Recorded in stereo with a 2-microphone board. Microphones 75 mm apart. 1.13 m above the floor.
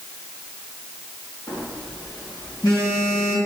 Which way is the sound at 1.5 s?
65° left (ahead or behind).